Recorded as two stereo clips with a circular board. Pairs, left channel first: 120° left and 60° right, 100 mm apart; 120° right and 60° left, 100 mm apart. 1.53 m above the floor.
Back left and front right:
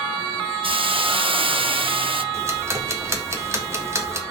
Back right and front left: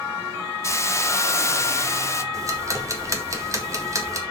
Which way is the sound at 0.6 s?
60° right.